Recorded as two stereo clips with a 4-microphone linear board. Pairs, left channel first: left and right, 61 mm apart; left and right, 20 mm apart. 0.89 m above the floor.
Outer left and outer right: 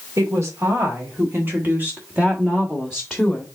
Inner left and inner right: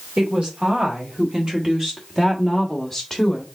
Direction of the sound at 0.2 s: 55° right (ahead or behind).